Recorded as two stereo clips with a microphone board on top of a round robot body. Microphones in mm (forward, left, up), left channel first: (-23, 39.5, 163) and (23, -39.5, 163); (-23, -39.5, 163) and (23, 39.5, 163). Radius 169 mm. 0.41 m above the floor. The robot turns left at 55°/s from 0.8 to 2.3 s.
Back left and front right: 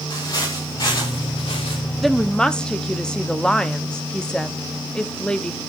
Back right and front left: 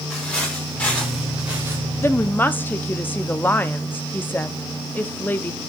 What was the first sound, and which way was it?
Footsteps, 165° left.